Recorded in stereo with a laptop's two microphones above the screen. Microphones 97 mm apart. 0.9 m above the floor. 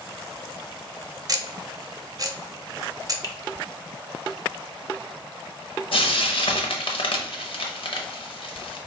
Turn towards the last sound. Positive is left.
turn(degrees=65)  # may be behind; listen again after turning